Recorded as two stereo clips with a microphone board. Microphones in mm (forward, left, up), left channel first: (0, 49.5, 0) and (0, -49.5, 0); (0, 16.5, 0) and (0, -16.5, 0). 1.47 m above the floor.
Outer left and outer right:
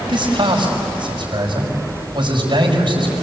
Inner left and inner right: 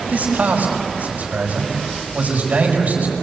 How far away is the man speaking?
About 6 m.